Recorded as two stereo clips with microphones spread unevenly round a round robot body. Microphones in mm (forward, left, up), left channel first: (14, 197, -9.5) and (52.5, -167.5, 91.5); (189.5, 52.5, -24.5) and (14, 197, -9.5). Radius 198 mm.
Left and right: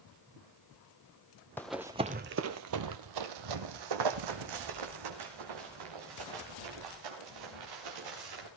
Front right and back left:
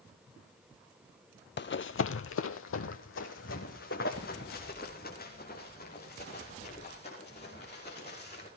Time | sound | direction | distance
1.6 | running footsteps | straight ahead | 0.8 m